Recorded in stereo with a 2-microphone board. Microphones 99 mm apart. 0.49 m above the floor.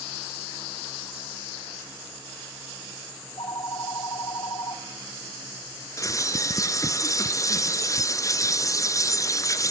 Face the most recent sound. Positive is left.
turn(degrees=30)  # may be behind; listen again after turning